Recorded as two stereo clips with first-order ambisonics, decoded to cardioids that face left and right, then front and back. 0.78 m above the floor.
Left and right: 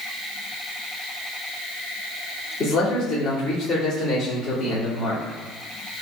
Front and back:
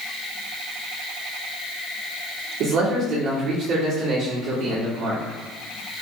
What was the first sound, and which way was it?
A man speaking, 150° left.